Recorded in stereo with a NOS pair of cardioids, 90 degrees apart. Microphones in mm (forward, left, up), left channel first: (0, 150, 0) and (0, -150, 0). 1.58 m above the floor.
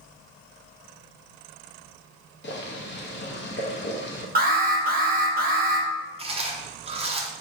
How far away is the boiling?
About 0.9 m.